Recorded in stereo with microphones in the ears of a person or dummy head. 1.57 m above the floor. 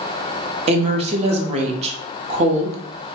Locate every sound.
0.7 s a woman speaking: 35° right (ahead or behind), 0.8 m